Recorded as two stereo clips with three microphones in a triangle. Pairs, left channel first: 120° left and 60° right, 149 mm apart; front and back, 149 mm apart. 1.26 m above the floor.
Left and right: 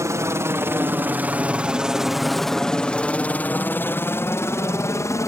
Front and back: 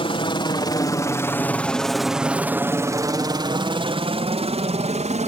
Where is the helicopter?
5° right; by 5.3 s 175° right.